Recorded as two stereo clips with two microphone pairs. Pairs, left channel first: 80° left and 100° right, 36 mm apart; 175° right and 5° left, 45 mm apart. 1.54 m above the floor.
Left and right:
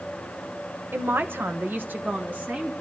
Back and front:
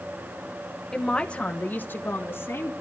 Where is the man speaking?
95° right, 1.2 m; by 2.7 s 150° right, 1.8 m.